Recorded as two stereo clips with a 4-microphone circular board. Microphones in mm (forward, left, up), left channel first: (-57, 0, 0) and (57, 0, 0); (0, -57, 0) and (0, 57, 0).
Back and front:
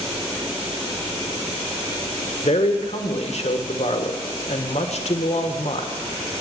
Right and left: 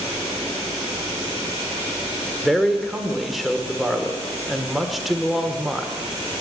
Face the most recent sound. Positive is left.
turn(degrees=180)